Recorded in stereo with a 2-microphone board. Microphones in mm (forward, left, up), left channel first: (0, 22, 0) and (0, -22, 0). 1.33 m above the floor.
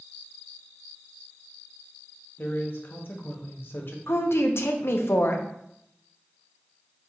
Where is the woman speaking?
75° left (ahead or behind), 0.5 m.